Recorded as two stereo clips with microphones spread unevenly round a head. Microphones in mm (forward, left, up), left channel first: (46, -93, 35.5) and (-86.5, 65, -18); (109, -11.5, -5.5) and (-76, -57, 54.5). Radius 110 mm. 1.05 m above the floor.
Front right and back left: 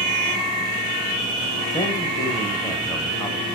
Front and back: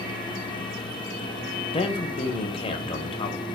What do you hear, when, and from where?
1.7 s a man speaking: 35° left, 0.7 m